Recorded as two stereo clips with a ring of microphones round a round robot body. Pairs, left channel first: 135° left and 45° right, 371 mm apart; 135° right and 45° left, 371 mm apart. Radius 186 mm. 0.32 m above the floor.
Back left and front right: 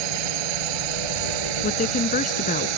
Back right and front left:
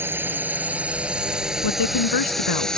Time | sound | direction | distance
0.0 | a drone | 40° right | ?
1.6 | a woman speaking | 160° right | ?